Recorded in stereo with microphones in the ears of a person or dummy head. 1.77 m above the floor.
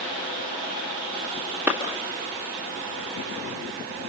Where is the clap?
5° right (ahead or behind), 1.8 m.